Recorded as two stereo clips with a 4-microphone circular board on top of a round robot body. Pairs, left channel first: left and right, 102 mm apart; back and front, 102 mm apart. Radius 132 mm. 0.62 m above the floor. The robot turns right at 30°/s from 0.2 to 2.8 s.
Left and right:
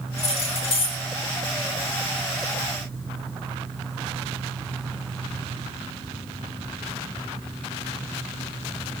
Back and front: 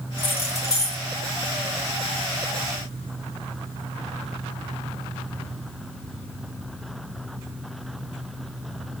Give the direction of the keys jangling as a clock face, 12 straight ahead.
8 o'clock.